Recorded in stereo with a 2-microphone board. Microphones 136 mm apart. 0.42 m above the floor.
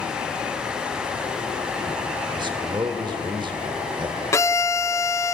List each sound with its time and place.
2.4 s a man speaking: 35° right (ahead or behind), 1.5 m
4.3 s a violin: 20° left (ahead or behind), 0.8 m